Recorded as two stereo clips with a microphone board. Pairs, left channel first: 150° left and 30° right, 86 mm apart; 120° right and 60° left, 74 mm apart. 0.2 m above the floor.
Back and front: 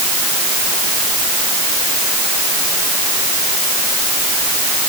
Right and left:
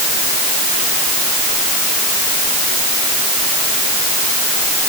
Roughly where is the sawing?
No sawing in this recording.